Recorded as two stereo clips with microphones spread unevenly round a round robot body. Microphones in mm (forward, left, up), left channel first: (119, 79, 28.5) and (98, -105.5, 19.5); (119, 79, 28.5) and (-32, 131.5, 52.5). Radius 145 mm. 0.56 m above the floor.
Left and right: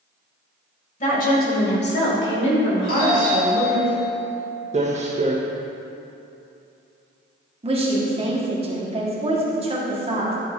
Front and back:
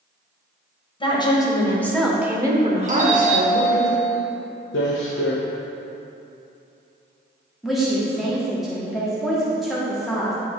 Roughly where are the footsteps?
Ahead right.